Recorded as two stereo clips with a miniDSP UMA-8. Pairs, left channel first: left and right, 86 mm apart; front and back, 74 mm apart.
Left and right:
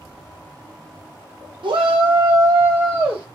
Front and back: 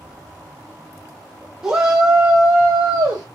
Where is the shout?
105° right, 0.9 m; by 3.2 s 155° right, 1.0 m.